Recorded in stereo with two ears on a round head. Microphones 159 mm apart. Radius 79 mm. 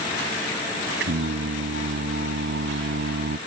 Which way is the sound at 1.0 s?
65° right (ahead or behind).